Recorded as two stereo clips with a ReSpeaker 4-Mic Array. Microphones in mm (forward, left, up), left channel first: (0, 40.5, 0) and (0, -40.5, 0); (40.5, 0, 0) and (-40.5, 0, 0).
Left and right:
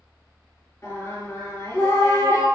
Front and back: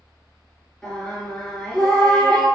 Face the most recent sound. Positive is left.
turn(degrees=75)